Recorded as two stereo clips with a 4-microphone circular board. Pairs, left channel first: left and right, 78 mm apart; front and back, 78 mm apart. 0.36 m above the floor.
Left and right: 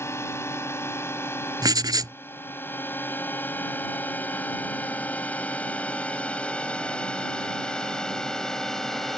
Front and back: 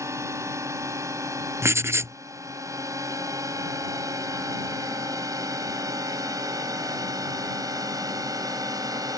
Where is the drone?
135° left; by 9.2 s 175° left.